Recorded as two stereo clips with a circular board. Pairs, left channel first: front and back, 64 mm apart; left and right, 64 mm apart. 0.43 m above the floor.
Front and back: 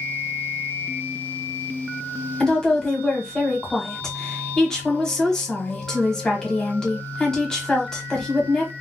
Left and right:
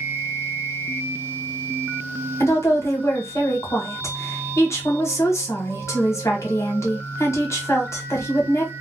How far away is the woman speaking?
About 1.2 m.